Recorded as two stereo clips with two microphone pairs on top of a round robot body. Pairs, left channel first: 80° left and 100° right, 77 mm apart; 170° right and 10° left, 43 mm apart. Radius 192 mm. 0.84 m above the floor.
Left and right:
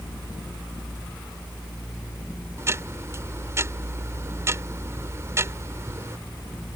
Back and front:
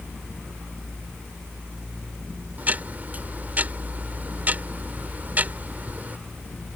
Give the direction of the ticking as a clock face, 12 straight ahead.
1 o'clock.